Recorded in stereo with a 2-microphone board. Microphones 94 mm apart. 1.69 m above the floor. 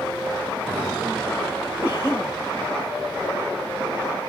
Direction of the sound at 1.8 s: 25° left (ahead or behind).